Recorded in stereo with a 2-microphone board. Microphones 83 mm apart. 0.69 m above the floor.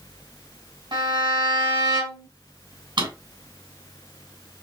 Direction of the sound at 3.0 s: 70° right (ahead or behind).